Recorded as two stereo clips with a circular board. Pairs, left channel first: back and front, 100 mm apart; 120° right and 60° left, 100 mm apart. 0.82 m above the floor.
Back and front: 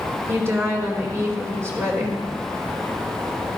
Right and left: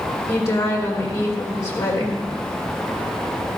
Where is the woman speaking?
60° right, 2.5 m.